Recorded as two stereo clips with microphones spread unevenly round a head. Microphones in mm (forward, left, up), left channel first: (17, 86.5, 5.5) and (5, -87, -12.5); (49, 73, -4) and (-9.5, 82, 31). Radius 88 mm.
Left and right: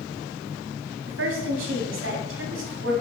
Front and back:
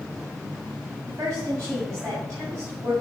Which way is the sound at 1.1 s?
115° right.